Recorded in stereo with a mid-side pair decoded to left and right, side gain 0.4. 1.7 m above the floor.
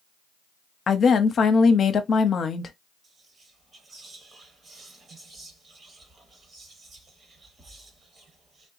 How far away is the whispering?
About 1.4 m.